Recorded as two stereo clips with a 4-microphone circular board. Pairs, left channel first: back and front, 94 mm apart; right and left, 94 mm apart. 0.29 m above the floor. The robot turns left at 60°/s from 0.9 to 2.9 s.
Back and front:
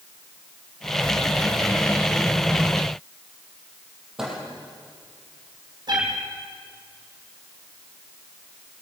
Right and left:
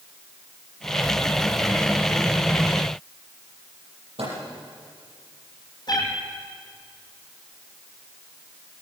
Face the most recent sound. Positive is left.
turn(degrees=-45)